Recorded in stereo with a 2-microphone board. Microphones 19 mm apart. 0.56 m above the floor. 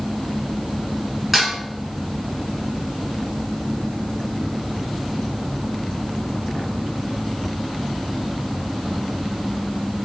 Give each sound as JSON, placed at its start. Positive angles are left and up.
{"t": 1.3, "sound": "dishes clattering", "side_deg": -15, "distance_m": 1.6}